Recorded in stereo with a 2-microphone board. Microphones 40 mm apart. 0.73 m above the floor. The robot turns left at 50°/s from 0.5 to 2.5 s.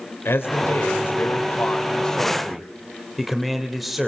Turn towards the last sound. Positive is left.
turn(degrees=0)